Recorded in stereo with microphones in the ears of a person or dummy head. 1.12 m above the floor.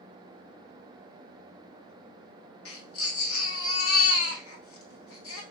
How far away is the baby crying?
About 1.5 m.